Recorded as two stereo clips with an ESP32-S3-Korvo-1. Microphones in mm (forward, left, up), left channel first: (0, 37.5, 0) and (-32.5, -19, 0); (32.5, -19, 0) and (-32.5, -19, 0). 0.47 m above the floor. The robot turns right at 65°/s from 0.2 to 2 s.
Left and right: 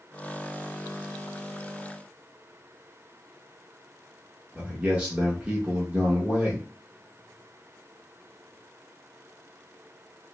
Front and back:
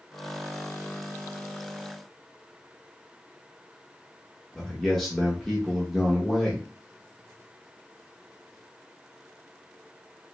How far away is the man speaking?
About 0.8 m.